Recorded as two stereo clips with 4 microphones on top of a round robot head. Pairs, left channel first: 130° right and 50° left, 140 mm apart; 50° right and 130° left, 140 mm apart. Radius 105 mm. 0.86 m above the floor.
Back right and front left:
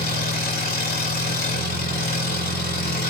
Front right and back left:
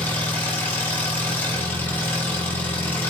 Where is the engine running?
130° right, 5 m.